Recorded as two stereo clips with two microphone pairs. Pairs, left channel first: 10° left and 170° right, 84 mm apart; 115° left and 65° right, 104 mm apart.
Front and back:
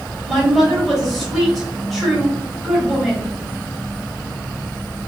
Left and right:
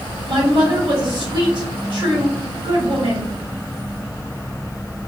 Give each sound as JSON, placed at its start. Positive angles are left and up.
{"t": 0.3, "sound": "a woman speaking", "azimuth_deg": -80, "distance_m": 1.7}